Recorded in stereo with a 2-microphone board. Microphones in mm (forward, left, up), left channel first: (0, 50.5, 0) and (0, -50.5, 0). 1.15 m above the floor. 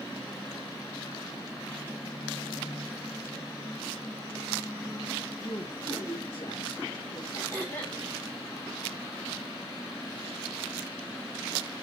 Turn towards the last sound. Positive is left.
turn(degrees=20)  # may be behind; listen again after turning